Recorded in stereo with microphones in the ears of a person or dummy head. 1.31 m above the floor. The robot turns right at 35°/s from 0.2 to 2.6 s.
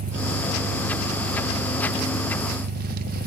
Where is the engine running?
135° right, 0.9 m; by 3.3 s 55° right, 0.9 m.